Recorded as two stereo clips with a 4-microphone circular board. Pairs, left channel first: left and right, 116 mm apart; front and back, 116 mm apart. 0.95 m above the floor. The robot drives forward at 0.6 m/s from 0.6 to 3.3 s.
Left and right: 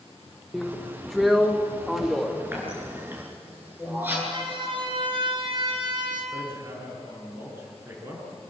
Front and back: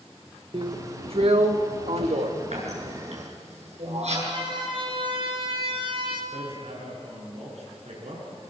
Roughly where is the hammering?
Behind.